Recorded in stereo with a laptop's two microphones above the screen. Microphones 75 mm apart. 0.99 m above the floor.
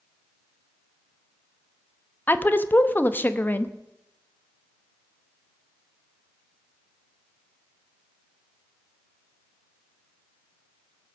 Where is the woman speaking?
25° left (ahead or behind), 0.9 m.